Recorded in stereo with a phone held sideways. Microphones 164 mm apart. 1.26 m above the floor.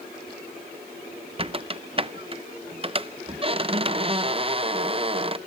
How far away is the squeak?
About 0.6 m.